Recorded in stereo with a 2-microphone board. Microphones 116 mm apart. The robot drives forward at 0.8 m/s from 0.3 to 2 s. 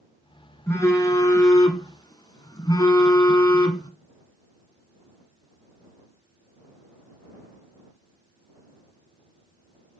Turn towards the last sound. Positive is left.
turn(degrees=40)  # may be behind; listen again after turning